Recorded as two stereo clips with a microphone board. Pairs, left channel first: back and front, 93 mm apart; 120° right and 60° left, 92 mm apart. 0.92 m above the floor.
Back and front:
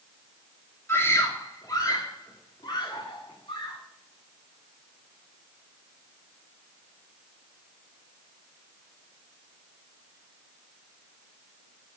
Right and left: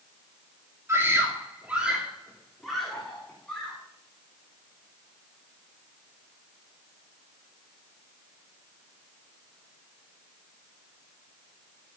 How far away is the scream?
About 2.5 m.